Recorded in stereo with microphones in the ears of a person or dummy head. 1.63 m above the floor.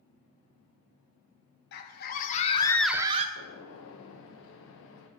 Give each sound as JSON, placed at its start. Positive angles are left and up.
{"t": 1.7, "sound": "a scream", "side_deg": 55, "distance_m": 1.7}
{"t": 3.4, "sound": "a gunshot", "side_deg": 70, "distance_m": 1.2}